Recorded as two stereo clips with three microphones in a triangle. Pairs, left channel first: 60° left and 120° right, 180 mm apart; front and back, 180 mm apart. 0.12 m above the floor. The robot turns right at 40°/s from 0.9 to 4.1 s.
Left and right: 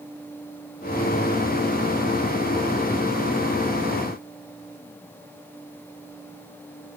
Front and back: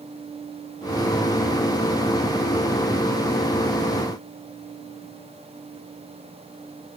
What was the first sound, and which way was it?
Only background noise.